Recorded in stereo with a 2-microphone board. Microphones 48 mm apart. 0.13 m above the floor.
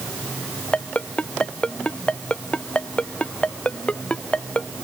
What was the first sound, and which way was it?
A ringtone, 25° left (ahead or behind).